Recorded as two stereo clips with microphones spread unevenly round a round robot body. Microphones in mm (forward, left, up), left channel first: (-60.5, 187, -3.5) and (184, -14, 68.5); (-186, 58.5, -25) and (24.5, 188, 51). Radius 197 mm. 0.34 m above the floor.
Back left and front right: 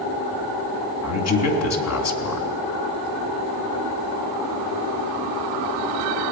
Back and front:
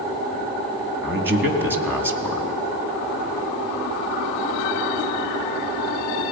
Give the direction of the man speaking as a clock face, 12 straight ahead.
8 o'clock.